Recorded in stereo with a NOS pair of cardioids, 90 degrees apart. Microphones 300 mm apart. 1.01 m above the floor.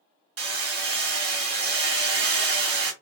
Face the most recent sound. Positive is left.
turn(degrees=-50)